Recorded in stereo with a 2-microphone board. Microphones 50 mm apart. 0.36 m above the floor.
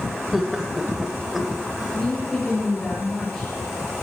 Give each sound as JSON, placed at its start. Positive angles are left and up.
{"t": 0.3, "sound": "laughter", "side_deg": -5, "distance_m": 1.5}
{"t": 1.8, "sound": "a woman speaking", "side_deg": 10, "distance_m": 6.0}